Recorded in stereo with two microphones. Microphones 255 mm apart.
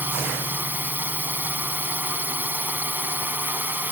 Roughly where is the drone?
Centre.